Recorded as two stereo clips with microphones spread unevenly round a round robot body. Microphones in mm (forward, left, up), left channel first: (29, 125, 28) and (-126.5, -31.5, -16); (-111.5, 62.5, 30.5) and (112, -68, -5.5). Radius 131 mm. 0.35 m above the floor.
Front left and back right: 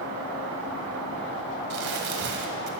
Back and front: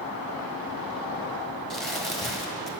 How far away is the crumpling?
About 1.5 m.